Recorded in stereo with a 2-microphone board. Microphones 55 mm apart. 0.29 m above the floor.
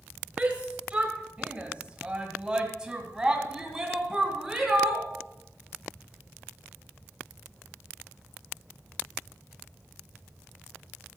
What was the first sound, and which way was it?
A shout, 25° right (ahead or behind).